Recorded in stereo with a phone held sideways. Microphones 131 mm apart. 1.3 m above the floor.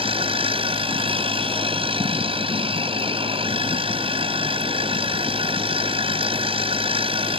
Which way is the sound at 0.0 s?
45° right (ahead or behind).